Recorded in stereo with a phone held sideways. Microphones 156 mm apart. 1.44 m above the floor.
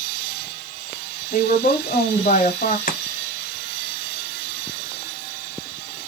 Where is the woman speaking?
60° left (ahead or behind), 0.7 m.